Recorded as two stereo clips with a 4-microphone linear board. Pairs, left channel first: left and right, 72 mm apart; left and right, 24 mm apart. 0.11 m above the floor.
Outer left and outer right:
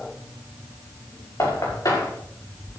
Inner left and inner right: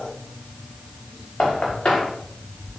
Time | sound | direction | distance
1.4 | knocking | 55° left (ahead or behind) | 6 m